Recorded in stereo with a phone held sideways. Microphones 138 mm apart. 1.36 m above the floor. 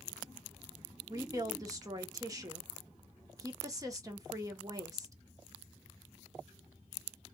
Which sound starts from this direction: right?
A woman speaking, at 1.1 s.